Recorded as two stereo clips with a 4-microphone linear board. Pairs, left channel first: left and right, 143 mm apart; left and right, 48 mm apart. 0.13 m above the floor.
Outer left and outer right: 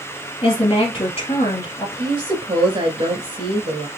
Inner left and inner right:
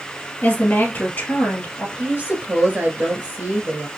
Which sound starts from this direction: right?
A woman speaking, at 2.0 s.